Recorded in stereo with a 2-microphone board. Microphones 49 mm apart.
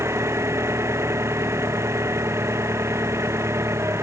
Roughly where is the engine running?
Right.